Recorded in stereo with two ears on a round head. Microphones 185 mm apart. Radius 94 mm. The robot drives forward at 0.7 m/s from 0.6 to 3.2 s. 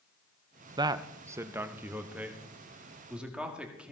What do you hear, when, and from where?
0.8 s a man speaking: 20° right (ahead or behind), 0.5 m; by 3.9 s 5° right (ahead or behind), 2 m